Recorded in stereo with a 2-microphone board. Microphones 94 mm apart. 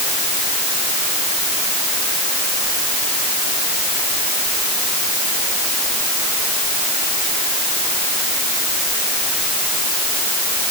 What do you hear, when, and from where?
Only background noise.